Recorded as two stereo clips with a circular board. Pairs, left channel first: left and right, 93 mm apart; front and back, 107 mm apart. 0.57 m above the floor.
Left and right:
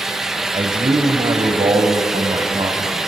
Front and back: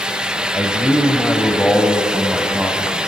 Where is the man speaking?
65° right, 2.5 m; by 3.0 s 100° right, 3.5 m.